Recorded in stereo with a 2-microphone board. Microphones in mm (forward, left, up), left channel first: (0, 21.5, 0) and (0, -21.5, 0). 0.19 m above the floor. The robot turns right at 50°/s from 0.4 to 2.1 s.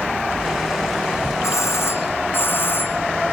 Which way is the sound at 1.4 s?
95° left.